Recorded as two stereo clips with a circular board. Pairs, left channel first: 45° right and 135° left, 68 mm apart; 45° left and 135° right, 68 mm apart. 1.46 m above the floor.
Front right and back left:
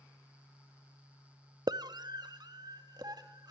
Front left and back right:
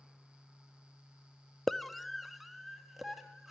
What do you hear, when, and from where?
1.7 s a scream: 135° left, 0.6 m; by 3.5 s 140° left, 3 m